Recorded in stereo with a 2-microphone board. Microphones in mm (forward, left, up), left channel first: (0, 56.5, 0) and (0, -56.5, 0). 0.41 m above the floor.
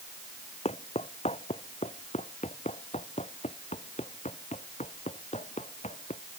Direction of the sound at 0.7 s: 70° left (ahead or behind).